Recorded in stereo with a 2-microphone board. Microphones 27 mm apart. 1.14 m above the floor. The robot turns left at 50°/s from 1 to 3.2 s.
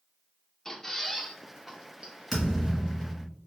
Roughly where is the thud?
Behind.